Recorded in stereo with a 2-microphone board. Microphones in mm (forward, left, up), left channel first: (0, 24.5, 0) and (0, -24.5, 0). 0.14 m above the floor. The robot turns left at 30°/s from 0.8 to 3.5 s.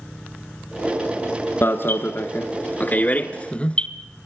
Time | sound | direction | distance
1.6 | an alarm | 50° left (ahead or behind) | 1.1 m